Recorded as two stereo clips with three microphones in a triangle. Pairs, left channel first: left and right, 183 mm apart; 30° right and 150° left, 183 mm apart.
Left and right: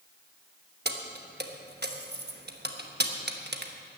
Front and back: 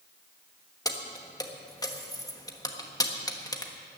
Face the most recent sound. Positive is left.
turn(degrees=-100)